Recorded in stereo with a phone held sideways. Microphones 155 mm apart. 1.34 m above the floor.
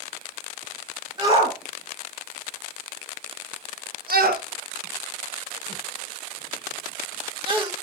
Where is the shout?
35° right (ahead or behind), 2 m; by 7.7 s 30° right (ahead or behind), 1.9 m.